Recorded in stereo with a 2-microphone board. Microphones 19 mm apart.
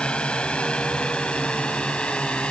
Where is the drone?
60° left (ahead or behind).